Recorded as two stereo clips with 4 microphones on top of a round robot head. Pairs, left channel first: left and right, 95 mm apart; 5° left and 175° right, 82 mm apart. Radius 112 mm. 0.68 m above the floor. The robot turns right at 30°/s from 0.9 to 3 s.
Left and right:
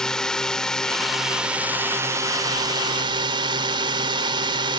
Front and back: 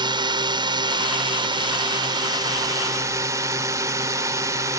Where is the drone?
175° left; by 4.8 s 125° right.